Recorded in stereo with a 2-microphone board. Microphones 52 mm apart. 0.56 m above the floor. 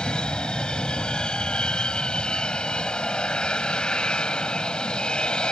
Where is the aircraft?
20° left (ahead or behind).